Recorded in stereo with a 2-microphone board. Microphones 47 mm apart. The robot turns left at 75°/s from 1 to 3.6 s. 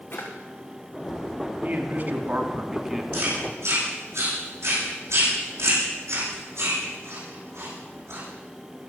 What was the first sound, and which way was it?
A drawer, 45° left (ahead or behind).